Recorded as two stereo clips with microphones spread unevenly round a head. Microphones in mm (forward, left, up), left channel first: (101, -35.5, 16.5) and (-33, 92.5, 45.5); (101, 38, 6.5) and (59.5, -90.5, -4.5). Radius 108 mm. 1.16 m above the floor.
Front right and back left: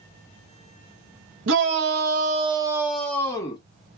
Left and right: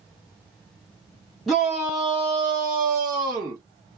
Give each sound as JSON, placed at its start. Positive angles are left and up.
{"t": 1.5, "sound": "a shout", "azimuth_deg": 165, "distance_m": 1.3}